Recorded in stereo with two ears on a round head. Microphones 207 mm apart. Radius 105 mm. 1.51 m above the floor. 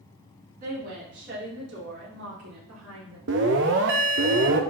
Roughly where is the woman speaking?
Right.